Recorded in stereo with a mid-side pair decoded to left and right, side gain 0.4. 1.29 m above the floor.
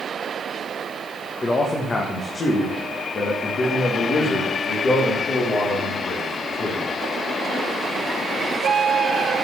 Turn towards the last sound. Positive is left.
turn(degrees=60)